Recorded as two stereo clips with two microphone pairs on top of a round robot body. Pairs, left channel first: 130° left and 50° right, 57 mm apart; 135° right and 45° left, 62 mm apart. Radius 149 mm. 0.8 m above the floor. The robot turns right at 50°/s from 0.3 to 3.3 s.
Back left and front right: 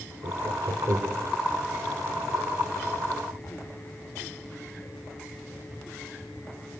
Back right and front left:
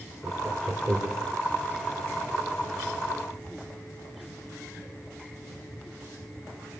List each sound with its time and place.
0.2 s laughter: 55° right, 4 m; by 1.3 s 5° right, 4 m